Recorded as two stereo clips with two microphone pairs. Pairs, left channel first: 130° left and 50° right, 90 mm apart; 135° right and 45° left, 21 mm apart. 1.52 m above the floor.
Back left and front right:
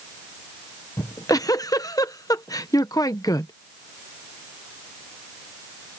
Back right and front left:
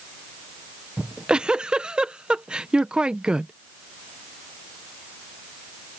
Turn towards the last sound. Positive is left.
turn(degrees=80)